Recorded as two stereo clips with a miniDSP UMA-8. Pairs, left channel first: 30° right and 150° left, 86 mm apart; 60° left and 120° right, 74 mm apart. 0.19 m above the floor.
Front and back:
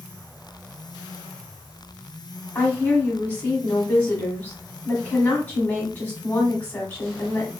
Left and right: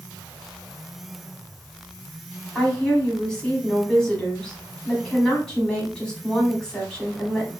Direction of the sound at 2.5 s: Straight ahead.